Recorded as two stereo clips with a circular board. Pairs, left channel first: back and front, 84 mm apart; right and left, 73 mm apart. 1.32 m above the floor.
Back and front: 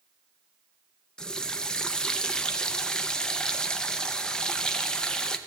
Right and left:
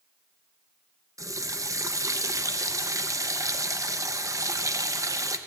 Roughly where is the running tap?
Left.